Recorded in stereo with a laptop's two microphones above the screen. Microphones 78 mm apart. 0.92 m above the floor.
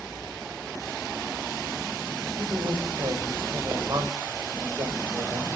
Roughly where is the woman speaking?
Right.